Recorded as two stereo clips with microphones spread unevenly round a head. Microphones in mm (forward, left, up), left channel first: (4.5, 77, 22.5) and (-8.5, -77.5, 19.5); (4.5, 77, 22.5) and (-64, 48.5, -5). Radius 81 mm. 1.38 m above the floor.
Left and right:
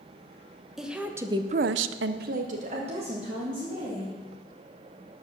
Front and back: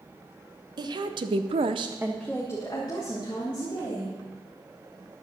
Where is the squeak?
No squeak in this recording.